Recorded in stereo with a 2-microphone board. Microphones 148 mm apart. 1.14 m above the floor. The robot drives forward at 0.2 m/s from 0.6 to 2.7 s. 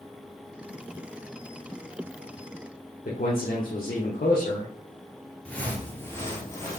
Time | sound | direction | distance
3.0 | a man speaking | 70° left (ahead or behind) | 0.8 m
5.5 | footsteps | 10° left (ahead or behind) | 1.1 m